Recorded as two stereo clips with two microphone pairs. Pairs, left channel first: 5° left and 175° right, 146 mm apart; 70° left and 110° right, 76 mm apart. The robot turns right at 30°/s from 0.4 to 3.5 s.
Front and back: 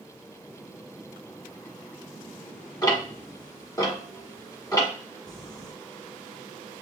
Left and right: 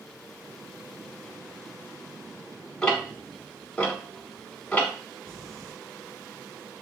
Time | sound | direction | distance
2.8 | ticking | 5° left | 1.3 m
5.3 | crumpling | 65° left | 1.2 m